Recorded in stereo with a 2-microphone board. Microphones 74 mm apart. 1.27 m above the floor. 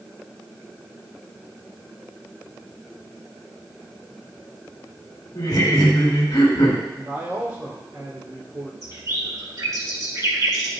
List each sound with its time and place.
5.3 s laughter: 75° left (ahead or behind), 2 m
6.9 s a man speaking: 35° right (ahead or behind), 3.5 m
8.8 s a bird: 50° right (ahead or behind), 3 m